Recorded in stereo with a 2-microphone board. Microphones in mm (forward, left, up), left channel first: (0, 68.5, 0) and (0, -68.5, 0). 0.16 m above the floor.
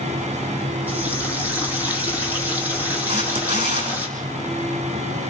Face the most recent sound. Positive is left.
turn(degrees=-65)  # may be behind; listen again after turning